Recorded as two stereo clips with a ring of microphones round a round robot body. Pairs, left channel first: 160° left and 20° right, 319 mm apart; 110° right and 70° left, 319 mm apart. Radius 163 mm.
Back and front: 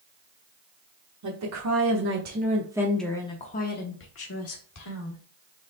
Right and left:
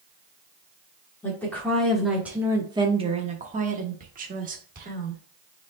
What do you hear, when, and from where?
1.2 s a woman speaking: 30° right, 1.3 m; by 5.2 s 130° left, 1.7 m